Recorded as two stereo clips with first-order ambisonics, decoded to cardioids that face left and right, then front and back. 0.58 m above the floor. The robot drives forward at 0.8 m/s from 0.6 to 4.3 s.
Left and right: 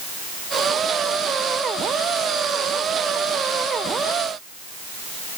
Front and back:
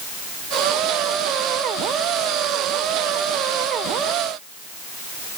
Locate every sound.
Only background noise.